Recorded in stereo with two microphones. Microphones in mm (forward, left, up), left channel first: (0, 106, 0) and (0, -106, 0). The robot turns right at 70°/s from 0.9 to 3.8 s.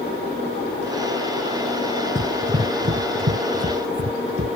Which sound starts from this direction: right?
Running footsteps, at 2.1 s.